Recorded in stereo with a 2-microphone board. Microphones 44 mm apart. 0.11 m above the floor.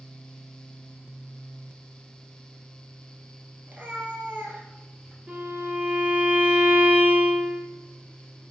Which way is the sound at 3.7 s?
35° right (ahead or behind).